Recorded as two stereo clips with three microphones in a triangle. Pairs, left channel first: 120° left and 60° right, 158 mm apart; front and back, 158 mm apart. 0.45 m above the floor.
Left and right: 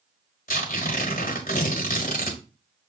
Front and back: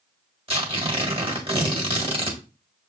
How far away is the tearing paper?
About 1.3 m.